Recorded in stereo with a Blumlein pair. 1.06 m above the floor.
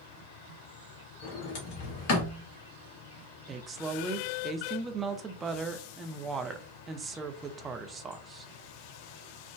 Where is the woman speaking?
20° right, 0.5 m.